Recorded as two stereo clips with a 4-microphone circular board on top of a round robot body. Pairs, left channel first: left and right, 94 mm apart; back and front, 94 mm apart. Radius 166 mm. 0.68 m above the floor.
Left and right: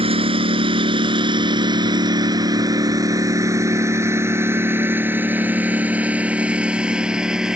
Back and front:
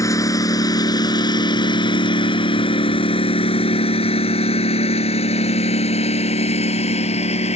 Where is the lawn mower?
120° right; by 7.6 s 175° right.